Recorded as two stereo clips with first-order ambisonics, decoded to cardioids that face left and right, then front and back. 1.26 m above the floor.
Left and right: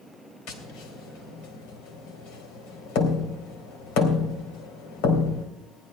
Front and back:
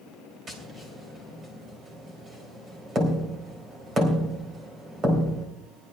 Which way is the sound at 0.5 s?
115° left.